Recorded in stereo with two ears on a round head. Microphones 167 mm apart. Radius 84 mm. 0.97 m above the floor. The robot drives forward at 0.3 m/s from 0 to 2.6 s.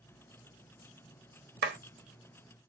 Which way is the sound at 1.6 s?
60° right (ahead or behind).